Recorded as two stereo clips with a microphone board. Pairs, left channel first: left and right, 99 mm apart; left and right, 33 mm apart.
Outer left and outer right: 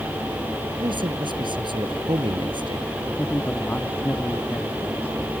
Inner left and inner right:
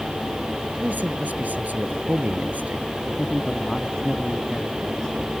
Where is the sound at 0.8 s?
55° right (ahead or behind).